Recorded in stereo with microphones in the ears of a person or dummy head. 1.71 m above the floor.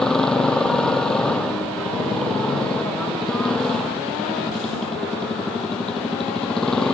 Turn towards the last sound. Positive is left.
turn(degrees=0)  # may be behind; listen again after turning